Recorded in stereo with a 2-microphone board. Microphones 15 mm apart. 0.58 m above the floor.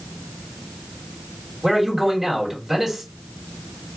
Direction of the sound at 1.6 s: 25° right (ahead or behind).